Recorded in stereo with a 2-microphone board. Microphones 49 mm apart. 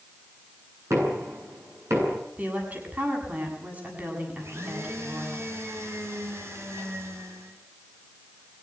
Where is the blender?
60° right (ahead or behind), 5.5 m.